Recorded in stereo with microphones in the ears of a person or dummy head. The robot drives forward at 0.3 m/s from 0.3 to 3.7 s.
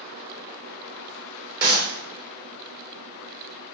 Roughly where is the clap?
Right.